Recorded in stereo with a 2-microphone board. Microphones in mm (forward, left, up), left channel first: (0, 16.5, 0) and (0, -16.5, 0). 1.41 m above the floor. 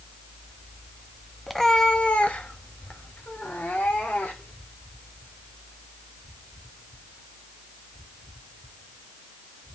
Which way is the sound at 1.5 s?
5° left (ahead or behind).